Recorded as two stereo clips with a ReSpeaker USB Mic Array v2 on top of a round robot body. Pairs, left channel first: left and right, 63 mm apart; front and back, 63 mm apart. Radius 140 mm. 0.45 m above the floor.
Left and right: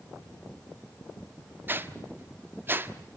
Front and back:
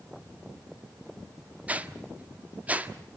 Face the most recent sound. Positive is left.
turn(degrees=-125)